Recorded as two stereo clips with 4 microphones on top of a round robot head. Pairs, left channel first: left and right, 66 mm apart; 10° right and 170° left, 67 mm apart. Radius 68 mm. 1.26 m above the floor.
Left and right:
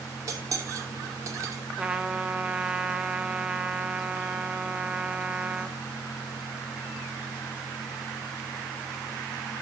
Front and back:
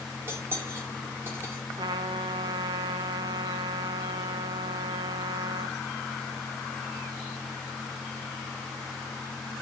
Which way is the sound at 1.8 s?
165° right.